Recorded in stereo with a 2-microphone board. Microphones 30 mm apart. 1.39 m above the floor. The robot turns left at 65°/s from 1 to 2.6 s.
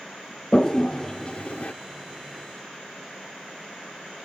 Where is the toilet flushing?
20° left (ahead or behind), 0.6 m; by 1.7 s 55° left (ahead or behind), 0.6 m.